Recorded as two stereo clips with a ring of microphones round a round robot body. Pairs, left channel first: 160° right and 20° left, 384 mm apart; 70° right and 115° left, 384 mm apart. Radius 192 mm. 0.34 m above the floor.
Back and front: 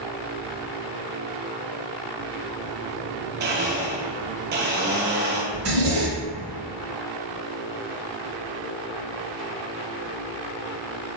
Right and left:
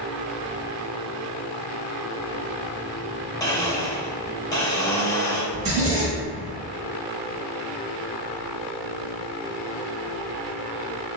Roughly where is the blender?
Ahead.